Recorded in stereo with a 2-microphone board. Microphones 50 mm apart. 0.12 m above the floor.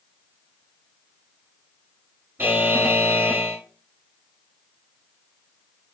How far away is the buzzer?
About 1.2 m.